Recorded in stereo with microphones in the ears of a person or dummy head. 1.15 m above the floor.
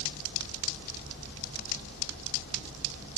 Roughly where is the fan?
Left.